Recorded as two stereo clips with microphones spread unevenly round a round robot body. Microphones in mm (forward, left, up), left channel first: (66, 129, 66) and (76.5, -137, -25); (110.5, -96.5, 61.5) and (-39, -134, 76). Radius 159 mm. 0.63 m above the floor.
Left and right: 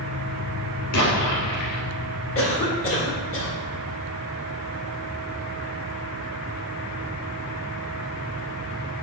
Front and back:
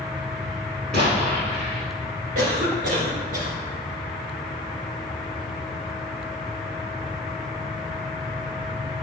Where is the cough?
150° left, 1.7 m.